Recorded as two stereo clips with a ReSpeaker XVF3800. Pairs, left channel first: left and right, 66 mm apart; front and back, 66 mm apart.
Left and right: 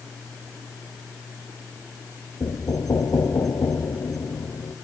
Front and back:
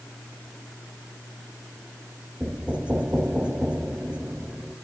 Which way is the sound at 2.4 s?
110° left.